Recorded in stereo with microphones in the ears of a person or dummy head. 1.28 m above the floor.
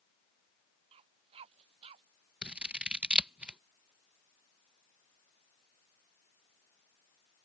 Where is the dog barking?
30° right (ahead or behind); by 2.0 s 35° right (ahead or behind).